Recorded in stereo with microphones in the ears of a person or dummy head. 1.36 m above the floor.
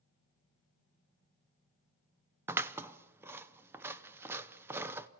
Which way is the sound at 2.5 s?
20° right (ahead or behind).